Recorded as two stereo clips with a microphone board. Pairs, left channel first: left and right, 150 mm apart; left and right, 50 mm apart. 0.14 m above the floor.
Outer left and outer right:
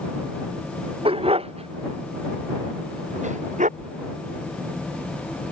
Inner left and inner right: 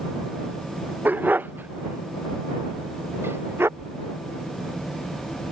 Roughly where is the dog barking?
Right.